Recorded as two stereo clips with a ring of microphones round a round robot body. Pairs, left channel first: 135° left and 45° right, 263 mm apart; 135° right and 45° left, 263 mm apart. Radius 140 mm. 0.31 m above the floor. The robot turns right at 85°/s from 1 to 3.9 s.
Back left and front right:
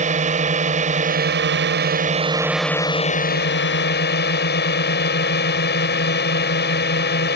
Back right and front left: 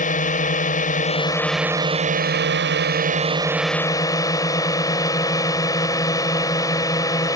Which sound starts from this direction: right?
A drone, at 0.0 s.